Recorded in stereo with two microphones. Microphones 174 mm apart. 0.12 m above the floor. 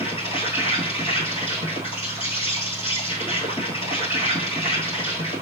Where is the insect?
35° left (ahead or behind), 1.2 m.